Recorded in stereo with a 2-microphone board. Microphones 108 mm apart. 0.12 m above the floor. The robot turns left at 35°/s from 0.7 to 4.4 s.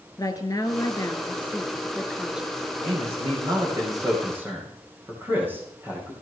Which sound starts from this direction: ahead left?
A woman speaking, at 0.2 s.